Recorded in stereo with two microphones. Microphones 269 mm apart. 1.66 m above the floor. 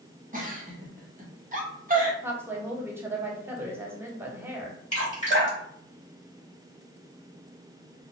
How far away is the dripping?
About 1.1 m.